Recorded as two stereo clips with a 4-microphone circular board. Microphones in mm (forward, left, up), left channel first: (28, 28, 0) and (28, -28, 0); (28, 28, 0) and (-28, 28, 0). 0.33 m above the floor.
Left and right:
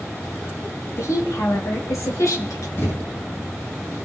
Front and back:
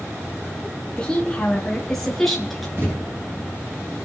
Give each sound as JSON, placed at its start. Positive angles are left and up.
{"t": 1.0, "sound": "a woman speaking", "azimuth_deg": 75, "distance_m": 3.0}
{"t": 2.8, "sound": "a thud", "azimuth_deg": 130, "distance_m": 9.5}